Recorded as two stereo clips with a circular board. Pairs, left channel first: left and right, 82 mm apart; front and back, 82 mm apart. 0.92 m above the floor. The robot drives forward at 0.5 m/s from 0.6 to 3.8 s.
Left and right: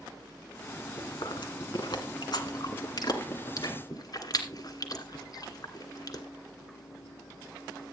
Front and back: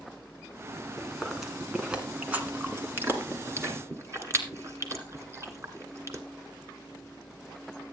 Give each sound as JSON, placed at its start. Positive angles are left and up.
{"t": 1.0, "sound": "chewing", "azimuth_deg": 90, "distance_m": 1.9}